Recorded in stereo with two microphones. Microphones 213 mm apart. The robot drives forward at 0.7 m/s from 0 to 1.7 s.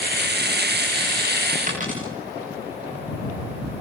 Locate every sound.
1.7 s a dropped coin: 40° right (ahead or behind), 7.5 m